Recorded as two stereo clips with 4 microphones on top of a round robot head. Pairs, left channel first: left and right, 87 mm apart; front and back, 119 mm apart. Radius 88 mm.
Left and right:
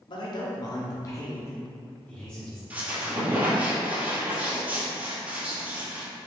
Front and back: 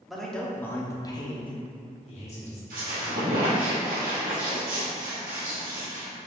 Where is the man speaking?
90° left, 1.1 m; by 2.6 s 5° left, 1.4 m.